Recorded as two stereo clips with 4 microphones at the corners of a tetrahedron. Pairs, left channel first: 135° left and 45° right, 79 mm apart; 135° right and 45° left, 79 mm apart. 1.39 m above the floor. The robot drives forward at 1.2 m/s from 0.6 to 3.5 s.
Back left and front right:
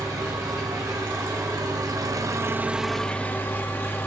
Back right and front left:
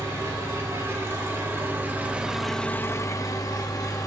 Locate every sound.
0.0 s an engine running: 5° right, 2.5 m; by 4.1 s 165° right, 1.2 m